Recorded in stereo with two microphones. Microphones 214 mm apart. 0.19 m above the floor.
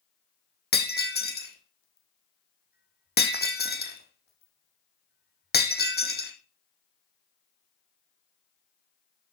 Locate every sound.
0.7 s breaking glass: 50° left (ahead or behind), 1.3 m